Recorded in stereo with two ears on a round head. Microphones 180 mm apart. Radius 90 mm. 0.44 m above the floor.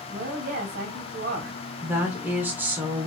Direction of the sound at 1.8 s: 10° right (ahead or behind).